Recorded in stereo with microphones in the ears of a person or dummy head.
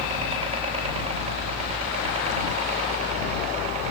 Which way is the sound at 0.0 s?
30° right (ahead or behind).